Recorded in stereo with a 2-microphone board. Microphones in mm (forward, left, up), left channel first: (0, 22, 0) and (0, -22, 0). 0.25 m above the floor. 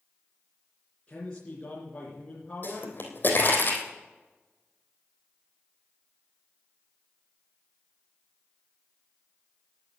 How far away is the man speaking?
About 3.5 m.